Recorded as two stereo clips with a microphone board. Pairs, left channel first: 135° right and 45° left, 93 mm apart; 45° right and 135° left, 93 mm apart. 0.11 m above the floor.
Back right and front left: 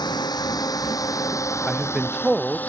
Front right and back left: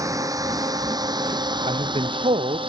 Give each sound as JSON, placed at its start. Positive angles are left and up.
{"t": 0.0, "sound": "a drone", "azimuth_deg": -175}
{"t": 1.7, "sound": "a man speaking", "azimuth_deg": 130}